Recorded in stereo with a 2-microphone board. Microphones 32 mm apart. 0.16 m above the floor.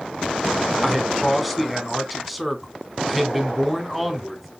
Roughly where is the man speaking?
Centre.